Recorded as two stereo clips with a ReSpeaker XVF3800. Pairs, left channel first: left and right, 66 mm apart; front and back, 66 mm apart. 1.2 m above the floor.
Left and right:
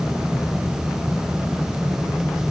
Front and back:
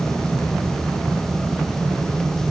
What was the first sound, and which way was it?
Only background noise.